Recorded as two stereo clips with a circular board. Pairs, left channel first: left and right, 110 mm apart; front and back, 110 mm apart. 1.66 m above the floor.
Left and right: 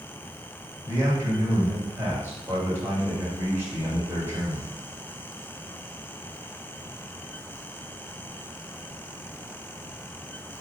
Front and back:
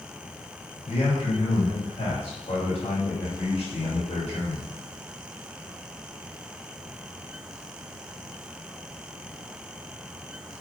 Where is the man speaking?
20° right, 3 m.